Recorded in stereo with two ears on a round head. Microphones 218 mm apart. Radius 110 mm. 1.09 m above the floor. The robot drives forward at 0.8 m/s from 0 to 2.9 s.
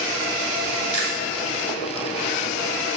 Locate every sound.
0.9 s chewing: 30° left (ahead or behind), 2 m; by 1.2 s 25° left (ahead or behind), 2.5 m